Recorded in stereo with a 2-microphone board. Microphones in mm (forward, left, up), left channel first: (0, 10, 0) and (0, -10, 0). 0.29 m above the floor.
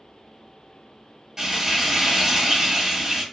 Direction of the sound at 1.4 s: 25° right (ahead or behind).